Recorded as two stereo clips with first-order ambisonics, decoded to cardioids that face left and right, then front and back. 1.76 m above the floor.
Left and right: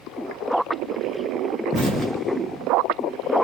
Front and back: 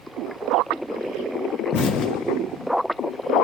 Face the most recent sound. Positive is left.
turn(degrees=-15)